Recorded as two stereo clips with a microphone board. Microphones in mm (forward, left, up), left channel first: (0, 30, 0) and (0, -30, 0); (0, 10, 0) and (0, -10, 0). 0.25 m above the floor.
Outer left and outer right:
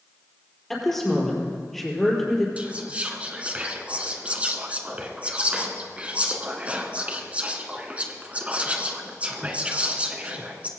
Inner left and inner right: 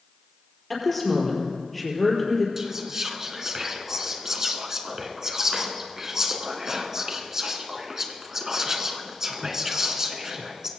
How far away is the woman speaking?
About 5 m.